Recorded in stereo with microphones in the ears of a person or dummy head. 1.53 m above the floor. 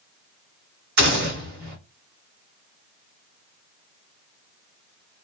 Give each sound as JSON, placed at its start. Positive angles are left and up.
{"t": 1.0, "sound": "a gunshot", "side_deg": -55, "distance_m": 2.5}